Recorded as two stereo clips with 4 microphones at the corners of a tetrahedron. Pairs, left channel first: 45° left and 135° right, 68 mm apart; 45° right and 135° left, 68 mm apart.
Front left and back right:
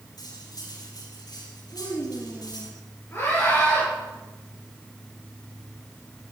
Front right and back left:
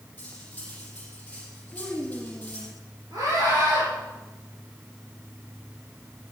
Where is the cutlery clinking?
25° left, 5.5 m.